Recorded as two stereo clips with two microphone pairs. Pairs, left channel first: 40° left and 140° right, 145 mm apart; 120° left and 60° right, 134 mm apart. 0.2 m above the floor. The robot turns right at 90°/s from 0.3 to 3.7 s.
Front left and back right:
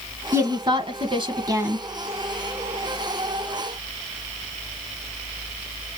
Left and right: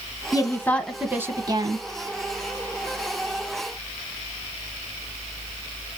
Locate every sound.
0.3 s a woman speaking: 160° left, 1.7 m; by 1.8 s 65° right, 1.7 m